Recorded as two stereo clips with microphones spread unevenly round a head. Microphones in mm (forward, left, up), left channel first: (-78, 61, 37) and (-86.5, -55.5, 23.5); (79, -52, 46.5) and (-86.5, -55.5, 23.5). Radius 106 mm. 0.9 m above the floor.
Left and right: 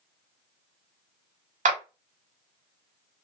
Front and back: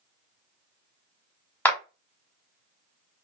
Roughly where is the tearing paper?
I don't hear tearing paper.